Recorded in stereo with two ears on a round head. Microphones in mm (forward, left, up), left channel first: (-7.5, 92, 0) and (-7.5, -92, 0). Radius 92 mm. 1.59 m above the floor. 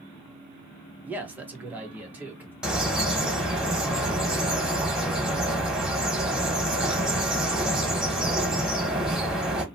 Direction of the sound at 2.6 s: 5° right (ahead or behind).